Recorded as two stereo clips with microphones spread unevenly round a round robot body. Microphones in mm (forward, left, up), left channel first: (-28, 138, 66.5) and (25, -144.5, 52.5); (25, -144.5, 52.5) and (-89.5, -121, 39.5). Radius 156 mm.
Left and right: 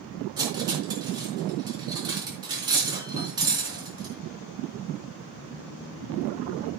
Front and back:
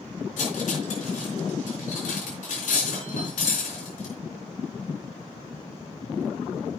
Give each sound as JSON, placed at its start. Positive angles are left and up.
{"t": 0.4, "sound": "cutlery clinking", "azimuth_deg": -5, "distance_m": 3.5}